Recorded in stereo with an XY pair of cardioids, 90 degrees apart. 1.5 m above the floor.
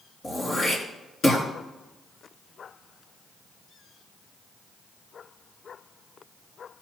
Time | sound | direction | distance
0.2 | throat clearing | 40° left | 4.5 m